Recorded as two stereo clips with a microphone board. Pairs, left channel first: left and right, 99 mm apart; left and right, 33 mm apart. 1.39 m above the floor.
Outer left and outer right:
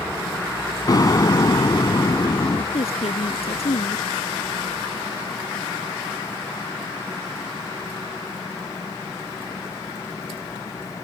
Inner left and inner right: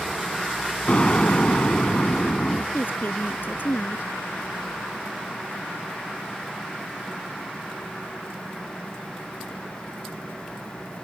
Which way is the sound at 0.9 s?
40° left (ahead or behind).